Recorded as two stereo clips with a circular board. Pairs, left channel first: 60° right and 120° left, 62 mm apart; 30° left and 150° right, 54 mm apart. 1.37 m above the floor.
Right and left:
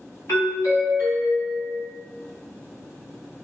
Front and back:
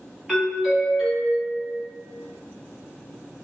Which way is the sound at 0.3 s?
60° right.